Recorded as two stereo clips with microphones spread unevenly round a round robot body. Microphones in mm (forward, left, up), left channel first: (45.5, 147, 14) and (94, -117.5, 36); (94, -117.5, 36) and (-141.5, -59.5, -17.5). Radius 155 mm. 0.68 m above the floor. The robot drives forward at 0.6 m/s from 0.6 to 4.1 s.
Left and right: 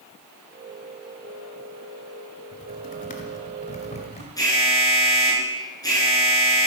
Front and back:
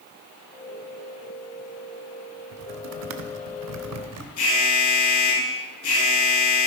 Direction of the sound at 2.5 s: 160° left.